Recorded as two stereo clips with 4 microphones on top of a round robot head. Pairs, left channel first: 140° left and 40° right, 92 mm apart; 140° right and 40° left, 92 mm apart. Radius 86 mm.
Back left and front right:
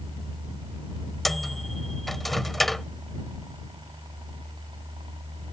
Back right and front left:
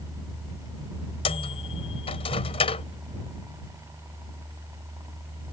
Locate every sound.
1.2 s a microwave: 135° right